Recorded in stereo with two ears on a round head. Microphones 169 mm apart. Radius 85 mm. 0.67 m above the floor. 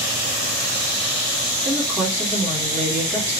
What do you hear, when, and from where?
1.6 s a woman speaking: 5° right (ahead or behind), 1.4 m